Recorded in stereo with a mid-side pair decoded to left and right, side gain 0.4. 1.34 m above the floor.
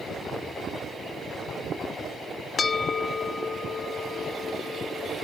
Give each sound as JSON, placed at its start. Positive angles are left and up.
{"t": 2.6, "sound": "a bell", "azimuth_deg": 50, "distance_m": 1.0}